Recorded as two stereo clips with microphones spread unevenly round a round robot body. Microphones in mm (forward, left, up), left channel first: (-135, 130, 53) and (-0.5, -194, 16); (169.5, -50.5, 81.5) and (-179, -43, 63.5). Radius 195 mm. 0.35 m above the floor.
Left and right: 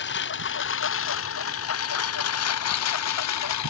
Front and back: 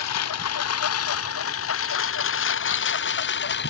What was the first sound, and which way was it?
A lawn mower, 50° left.